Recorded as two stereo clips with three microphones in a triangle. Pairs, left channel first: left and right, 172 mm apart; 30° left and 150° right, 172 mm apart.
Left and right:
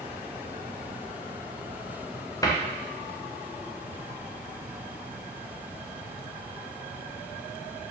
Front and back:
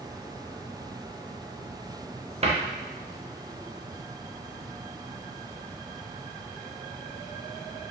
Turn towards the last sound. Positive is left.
turn(degrees=160)